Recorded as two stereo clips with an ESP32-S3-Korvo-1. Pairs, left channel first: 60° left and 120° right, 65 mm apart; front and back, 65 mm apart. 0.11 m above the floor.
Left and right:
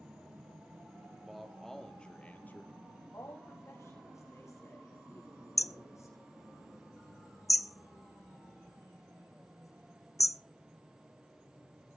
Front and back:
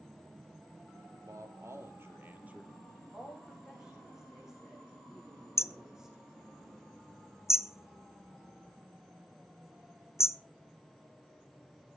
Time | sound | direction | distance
1.2 | a man speaking | 155° left | 3 m
3.1 | a woman speaking | 100° left | 6.5 m
5.6 | hammering | 35° left | 0.7 m